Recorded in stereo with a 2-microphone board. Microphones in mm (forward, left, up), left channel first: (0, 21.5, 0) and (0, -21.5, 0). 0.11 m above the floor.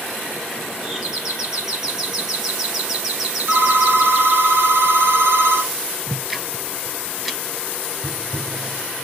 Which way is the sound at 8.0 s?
15° left (ahead or behind).